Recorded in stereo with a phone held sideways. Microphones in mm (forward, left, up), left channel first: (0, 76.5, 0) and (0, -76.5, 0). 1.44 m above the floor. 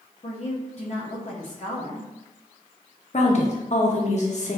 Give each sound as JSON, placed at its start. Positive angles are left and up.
{"t": 0.2, "sound": "a woman speaking", "side_deg": 50, "distance_m": 0.6}
{"t": 3.1, "sound": "a woman speaking", "side_deg": 50, "distance_m": 0.8}